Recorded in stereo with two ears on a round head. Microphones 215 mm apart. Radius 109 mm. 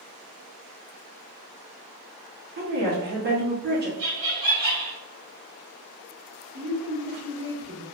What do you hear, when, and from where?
2.6 s a woman speaking: 45° right (ahead or behind), 1.4 m
4.0 s laughter: 65° right (ahead or behind), 1.4 m
6.5 s a woman speaking: 55° right (ahead or behind), 1.8 m